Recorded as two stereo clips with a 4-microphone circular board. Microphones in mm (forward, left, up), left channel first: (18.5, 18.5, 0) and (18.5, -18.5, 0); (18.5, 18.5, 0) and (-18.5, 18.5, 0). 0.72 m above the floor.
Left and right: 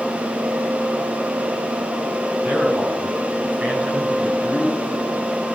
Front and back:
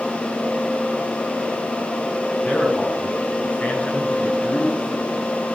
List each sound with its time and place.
2.4 s a man speaking: 50° right, 5.5 m; by 5.1 s 25° right, 4.5 m